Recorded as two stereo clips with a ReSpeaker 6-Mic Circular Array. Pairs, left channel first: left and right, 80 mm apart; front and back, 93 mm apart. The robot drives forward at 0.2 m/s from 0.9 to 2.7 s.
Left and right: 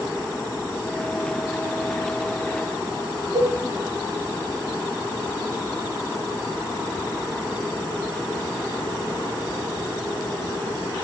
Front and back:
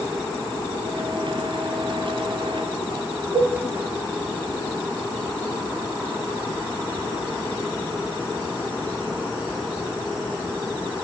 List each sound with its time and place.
3.3 s a cowbell: 125° right, 1.3 m